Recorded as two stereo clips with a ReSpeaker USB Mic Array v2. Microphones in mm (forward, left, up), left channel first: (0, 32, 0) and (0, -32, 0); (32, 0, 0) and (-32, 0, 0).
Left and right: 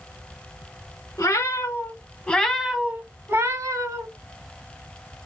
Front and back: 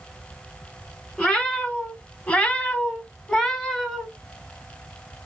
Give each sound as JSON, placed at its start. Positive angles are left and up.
{"t": 1.2, "sound": "a cat meowing", "azimuth_deg": 70, "distance_m": 1.0}